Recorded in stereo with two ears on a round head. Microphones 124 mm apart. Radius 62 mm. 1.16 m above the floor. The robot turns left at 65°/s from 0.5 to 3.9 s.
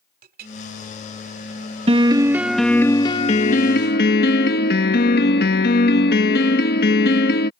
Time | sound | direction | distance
0.2 | a clink | 70° right (ahead or behind) | ?
1.9 | a piano | 135° right | ?